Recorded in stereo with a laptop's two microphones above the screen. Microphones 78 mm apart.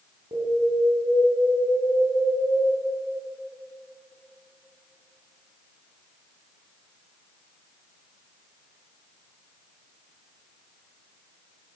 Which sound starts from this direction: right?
An alarm, at 0.3 s.